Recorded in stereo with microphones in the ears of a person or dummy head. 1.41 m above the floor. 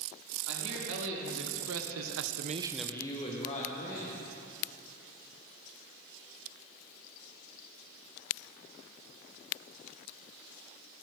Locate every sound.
0.5 s a man speaking: 70° right (ahead or behind), 3.5 m; by 4.1 s 45° left (ahead or behind), 2.5 m